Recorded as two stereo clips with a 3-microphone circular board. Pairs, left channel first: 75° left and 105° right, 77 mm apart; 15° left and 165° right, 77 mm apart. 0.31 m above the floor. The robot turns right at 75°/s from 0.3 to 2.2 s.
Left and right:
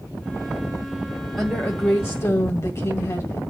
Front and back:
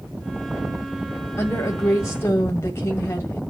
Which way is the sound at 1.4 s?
10° right.